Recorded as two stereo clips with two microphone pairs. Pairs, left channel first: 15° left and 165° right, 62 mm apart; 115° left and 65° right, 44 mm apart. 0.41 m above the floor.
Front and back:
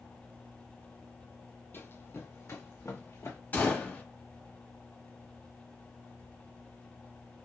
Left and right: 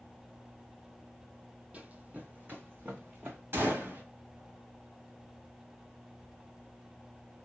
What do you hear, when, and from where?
1.7 s running footsteps: 20° right, 0.6 m; by 3.4 s 25° right, 1.7 m
3.5 s a gunshot: 45° right, 1.4 m